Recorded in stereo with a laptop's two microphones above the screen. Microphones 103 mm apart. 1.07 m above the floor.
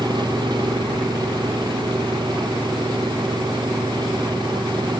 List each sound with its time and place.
0.0 s an engine running: 50° right (ahead or behind)